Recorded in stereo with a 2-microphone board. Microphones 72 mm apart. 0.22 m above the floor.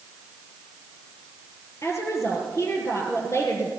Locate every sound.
1.8 s a woman speaking: 40° left (ahead or behind), 5 m